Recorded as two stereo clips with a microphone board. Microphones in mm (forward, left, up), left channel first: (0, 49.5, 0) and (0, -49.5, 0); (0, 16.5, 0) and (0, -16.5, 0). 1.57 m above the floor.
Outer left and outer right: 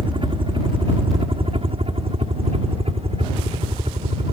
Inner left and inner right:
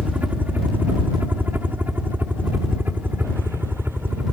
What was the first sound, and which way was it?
A helicopter, 55° right (ahead or behind).